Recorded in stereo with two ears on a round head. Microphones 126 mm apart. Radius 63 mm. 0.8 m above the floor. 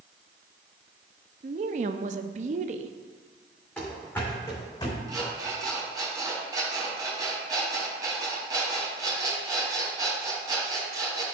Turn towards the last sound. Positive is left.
turn(degrees=-25)  # may be behind; listen again after turning